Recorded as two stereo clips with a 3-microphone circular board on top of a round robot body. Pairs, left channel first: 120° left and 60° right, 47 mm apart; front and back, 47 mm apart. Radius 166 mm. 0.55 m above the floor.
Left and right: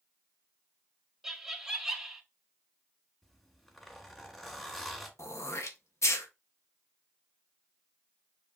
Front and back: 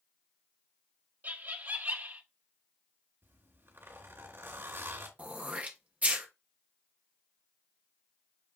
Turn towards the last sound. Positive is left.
turn(degrees=120)